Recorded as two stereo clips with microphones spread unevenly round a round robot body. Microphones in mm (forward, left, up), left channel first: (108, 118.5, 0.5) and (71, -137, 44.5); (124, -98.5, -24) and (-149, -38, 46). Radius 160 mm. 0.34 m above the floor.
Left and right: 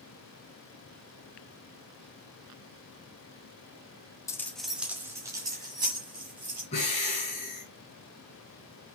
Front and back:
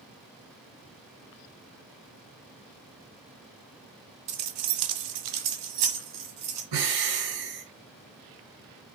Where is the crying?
No crying in this recording.